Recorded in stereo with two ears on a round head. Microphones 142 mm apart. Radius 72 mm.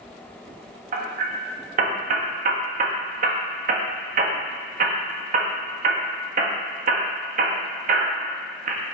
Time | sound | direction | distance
0.9 | hammering | 55° right (ahead or behind) | 1.3 m